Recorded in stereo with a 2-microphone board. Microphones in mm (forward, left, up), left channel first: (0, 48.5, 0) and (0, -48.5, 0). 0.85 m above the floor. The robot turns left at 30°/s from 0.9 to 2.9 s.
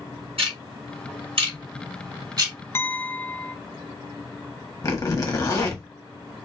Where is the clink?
25° left (ahead or behind), 0.6 m; by 3.6 s 20° left (ahead or behind), 0.6 m.